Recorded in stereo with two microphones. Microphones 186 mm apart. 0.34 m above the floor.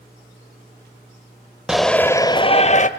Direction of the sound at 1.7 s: 5° right (ahead or behind).